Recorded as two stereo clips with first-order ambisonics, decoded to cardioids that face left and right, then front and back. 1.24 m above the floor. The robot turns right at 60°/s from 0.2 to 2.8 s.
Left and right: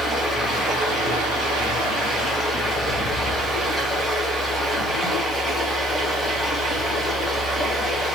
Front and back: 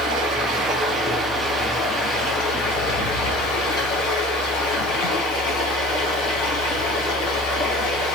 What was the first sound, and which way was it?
Running water, 170° right.